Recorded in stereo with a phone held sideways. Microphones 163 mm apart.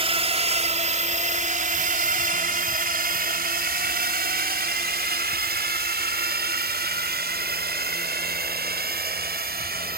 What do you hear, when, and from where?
0.0 s a drone: 35° right (ahead or behind); by 10.0 s 70° right (ahead or behind)